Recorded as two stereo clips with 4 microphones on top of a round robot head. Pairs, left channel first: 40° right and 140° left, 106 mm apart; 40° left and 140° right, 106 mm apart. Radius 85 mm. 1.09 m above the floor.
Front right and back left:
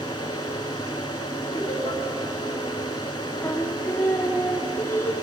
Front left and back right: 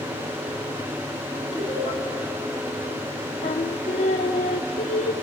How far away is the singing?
About 1.1 m.